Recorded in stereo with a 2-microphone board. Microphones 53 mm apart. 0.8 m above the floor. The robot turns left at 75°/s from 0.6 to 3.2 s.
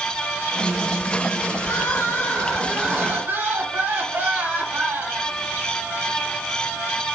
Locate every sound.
1.6 s crying: 80° left, 2.5 m; by 5.3 s 40° right, 2.5 m